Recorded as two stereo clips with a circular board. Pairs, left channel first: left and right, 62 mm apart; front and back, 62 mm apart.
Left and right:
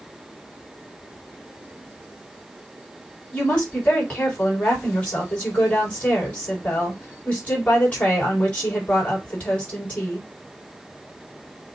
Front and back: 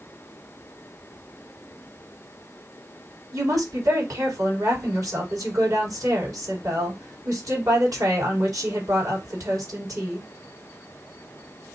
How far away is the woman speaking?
About 3.5 m.